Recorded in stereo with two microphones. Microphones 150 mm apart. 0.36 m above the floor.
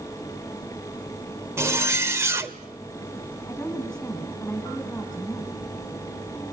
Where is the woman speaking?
10° left (ahead or behind), 3.5 m.